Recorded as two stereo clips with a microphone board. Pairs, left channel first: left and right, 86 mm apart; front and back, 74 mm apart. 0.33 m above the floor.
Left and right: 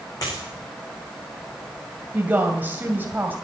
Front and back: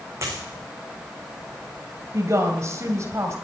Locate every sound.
0.2 s a dropped coin: 130° left, 9.5 m
2.1 s a woman speaking: 150° right, 2.0 m